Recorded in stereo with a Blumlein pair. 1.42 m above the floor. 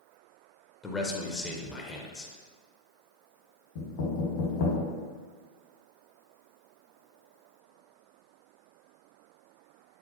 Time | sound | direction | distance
0.8 | a man speaking | 15° left | 0.6 m
3.8 | knocking | 50° left | 1.2 m